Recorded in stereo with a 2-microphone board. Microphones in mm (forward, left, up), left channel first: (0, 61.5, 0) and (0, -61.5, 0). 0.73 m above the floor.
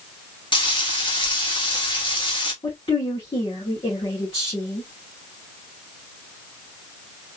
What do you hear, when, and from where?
0.5 s frying: 40° left (ahead or behind), 1.3 m
2.6 s a woman speaking: 45° left (ahead or behind), 2 m